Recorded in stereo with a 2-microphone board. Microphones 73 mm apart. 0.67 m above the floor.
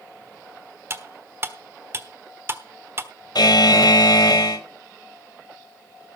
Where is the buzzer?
75° left (ahead or behind), 1.8 m.